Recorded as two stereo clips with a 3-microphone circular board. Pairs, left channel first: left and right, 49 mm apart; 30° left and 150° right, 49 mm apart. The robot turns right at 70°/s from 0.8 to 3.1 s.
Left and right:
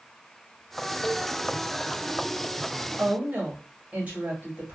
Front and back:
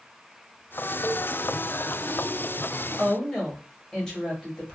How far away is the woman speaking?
About 1.2 m.